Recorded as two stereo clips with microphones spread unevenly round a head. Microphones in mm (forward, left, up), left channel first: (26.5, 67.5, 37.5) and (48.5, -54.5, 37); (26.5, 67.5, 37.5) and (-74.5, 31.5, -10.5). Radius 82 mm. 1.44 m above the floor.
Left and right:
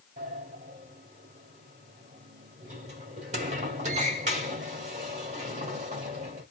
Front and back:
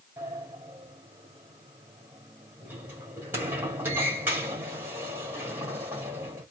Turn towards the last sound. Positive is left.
turn(degrees=-65)